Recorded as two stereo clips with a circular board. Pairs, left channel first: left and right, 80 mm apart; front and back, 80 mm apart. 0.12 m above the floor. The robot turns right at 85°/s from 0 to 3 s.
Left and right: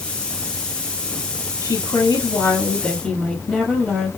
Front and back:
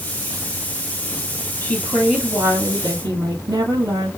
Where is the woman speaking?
60° left, 2.5 m; by 4.1 s 175° left, 2.5 m.